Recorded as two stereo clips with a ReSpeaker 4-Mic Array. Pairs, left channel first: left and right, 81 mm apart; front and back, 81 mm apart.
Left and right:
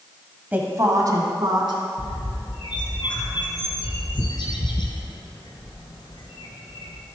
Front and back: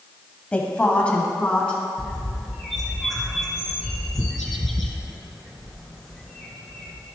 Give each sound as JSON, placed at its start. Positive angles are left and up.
{"t": 0.5, "sound": "a woman speaking", "azimuth_deg": -50, "distance_m": 1.1}
{"t": 2.0, "sound": "a bird", "azimuth_deg": 90, "distance_m": 1.6}